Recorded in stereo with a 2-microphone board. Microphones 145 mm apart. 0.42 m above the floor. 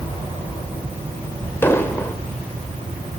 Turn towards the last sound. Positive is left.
turn(degrees=15)  # may be behind; listen again after turning